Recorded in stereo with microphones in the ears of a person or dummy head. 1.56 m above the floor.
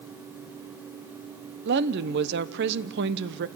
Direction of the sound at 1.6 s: 60° right (ahead or behind).